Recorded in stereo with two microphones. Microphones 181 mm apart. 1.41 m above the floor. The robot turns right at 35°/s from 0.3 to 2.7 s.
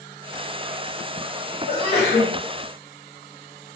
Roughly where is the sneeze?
Left.